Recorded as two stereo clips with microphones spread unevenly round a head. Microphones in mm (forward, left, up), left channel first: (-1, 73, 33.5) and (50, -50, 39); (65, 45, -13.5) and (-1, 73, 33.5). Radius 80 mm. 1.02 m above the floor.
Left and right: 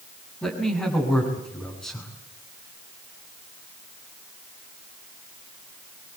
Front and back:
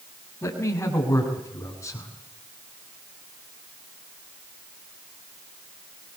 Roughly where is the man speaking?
Ahead left.